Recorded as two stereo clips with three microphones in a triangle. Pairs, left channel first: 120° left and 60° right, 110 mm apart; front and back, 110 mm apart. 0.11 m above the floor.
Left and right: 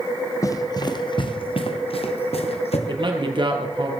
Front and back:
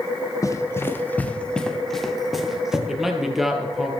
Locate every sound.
0.4 s running footsteps: 60° left, 1.3 m; by 2.8 s 95° left, 2.5 m
2.9 s a man speaking: 95° right, 2.5 m